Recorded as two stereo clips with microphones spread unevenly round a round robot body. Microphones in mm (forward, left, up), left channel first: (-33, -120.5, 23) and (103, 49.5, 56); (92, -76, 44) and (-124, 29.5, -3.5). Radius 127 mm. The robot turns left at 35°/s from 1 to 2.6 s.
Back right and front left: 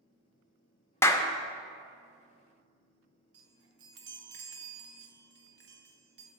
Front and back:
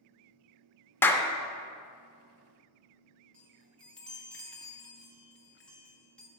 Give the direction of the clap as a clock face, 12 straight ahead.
4 o'clock.